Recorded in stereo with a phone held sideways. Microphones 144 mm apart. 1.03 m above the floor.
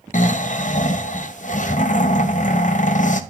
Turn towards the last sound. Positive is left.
turn(degrees=60)  # may be behind; listen again after turning